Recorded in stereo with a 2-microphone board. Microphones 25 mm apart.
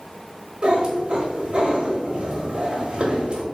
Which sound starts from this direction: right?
A cat meowing, at 0.6 s.